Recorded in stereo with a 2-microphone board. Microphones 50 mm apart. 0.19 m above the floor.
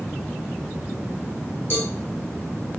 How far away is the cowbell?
About 2.5 m.